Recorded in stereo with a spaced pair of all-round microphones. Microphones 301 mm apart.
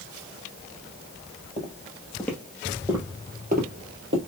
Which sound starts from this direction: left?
Footsteps, at 1.6 s.